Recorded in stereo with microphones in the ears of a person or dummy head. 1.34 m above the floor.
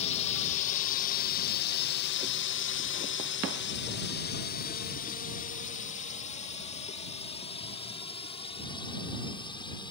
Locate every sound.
0.0 s a drone: 35° left (ahead or behind); by 9.9 s 25° left (ahead or behind)